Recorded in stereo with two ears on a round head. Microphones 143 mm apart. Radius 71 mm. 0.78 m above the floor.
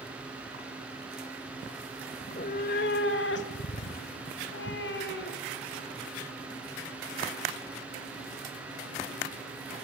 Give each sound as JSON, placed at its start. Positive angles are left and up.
{"t": 2.2, "sound": "a cat meowing", "side_deg": 40, "distance_m": 1.4}